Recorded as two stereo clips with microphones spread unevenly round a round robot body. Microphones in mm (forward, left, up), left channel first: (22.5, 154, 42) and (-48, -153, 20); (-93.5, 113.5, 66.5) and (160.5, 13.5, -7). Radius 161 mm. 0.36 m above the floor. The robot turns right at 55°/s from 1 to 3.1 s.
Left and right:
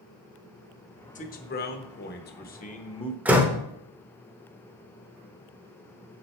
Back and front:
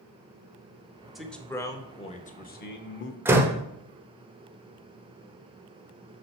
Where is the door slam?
35° right, 0.8 m.